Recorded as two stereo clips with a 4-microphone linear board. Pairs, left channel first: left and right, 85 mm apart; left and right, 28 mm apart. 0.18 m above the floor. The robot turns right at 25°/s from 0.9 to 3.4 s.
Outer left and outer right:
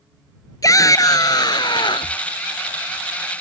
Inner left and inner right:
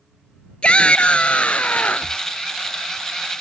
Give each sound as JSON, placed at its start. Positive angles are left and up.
{"t": 0.6, "sound": "a shout", "azimuth_deg": 45}